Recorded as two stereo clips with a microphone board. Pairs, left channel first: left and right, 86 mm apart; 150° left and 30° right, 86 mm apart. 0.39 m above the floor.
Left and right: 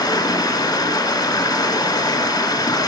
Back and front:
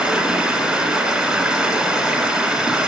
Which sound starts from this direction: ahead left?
Running water, at 0.0 s.